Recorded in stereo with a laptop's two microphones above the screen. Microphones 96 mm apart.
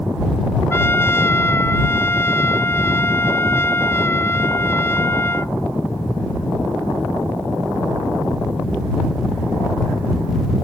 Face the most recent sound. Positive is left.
turn(degrees=25)  # may be behind; listen again after turning